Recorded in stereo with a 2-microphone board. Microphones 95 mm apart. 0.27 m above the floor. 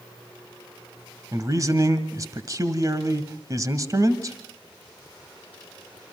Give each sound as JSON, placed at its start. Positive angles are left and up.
{"t": 1.3, "sound": "a man speaking", "side_deg": -40, "distance_m": 1.5}